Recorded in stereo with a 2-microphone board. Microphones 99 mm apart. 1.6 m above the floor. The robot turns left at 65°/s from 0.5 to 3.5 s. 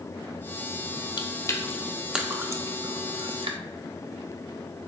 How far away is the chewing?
About 0.5 m.